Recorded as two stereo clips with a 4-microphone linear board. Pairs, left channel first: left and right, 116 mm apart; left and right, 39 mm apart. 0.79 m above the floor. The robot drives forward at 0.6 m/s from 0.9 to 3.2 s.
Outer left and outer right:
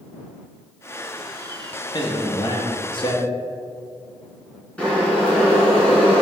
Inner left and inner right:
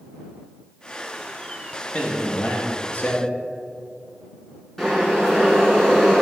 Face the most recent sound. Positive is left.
turn(degrees=10)  # may be behind; listen again after turning